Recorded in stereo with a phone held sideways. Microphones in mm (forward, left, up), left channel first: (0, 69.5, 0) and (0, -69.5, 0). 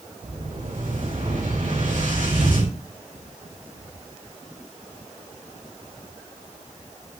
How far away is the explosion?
About 8.5 m.